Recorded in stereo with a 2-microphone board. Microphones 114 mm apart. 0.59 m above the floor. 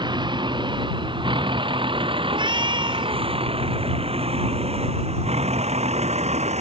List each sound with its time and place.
0.0 s a vehicle: 45° right (ahead or behind); by 6.6 s 80° right
2.3 s a cat meowing: 45° right (ahead or behind)